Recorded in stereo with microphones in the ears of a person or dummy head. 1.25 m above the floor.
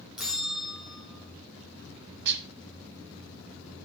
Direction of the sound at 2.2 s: 60° right (ahead or behind).